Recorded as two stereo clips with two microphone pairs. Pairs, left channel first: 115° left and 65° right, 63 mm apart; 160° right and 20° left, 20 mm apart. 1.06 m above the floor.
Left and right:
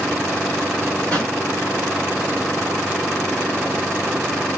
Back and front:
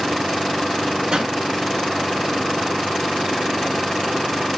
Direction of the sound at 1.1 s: 45° left.